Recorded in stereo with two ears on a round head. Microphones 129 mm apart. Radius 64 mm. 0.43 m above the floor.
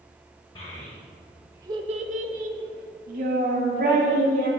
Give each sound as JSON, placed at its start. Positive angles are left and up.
{"t": 0.6, "sound": "a child speaking", "side_deg": 30, "distance_m": 1.1}